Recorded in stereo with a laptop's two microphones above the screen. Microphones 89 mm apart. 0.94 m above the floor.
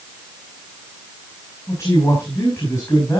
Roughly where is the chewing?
No chewing in this recording.